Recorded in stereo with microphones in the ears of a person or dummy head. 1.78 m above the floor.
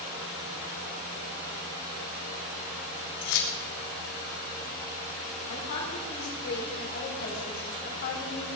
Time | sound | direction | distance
3.2 | keys jangling | 65° left (ahead or behind) | 3 m
5.5 | a woman speaking | 60° left (ahead or behind) | 5.5 m